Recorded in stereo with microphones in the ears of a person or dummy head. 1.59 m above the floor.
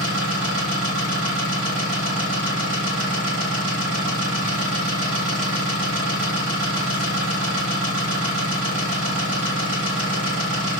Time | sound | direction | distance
0.0 | an engine running | 60° right (ahead or behind) | 1.6 m